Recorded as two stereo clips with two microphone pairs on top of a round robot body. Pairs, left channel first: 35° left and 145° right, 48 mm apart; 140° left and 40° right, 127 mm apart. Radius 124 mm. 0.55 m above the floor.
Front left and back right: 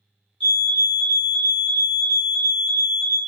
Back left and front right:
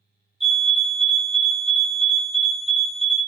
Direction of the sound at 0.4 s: 40° left.